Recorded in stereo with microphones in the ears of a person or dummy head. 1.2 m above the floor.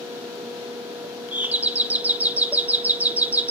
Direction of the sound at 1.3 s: 10° right (ahead or behind).